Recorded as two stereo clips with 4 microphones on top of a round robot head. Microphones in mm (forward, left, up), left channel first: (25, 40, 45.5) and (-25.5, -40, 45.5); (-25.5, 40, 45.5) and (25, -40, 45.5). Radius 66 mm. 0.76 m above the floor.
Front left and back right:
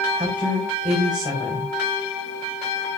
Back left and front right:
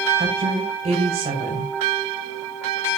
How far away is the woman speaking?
About 3.5 m.